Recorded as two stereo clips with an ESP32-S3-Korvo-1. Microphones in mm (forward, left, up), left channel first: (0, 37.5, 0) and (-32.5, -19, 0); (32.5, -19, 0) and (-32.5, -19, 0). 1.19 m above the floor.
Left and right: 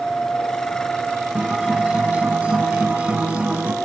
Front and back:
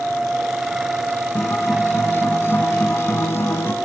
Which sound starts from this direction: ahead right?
A guitar, at 1.4 s.